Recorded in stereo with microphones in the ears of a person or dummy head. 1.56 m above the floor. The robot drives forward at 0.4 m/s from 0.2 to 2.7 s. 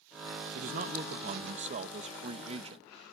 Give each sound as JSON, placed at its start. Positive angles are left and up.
{"t": 0.6, "sound": "a man speaking", "side_deg": -45}